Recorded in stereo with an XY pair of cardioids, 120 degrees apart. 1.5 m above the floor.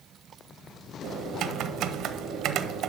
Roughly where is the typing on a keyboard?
Right.